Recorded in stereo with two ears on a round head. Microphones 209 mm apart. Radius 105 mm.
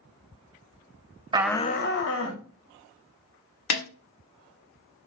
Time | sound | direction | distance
1.3 | a shout | 20° right (ahead or behind) | 0.5 m
3.7 | a snare drum | 75° left (ahead or behind) | 1.3 m